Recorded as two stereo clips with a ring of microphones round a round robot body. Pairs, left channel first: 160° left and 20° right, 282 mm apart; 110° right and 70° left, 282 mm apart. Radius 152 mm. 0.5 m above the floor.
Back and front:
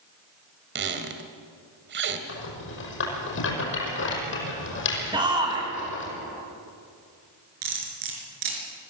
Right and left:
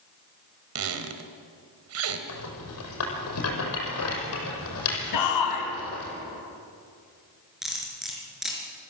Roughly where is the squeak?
Ahead left.